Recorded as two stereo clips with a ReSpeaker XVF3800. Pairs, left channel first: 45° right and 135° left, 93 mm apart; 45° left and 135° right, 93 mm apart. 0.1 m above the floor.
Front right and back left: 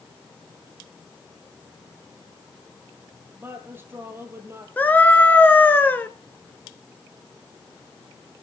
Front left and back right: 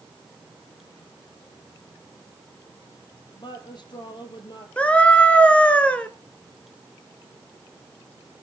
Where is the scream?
10° right, 1.1 m.